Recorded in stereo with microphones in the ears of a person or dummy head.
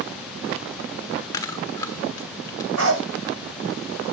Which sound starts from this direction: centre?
Chewing, at 1.3 s.